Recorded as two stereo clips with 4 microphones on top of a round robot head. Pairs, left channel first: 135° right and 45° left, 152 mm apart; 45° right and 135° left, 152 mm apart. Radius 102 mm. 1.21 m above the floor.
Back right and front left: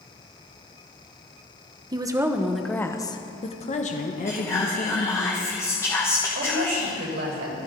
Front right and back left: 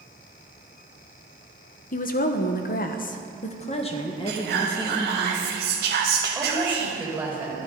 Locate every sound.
1.9 s a woman speaking: 15° right, 1.3 m; by 5.3 s 115° right, 2.5 m
4.3 s whispering: 150° left, 0.9 m
6.3 s a woman speaking: 55° left, 4.5 m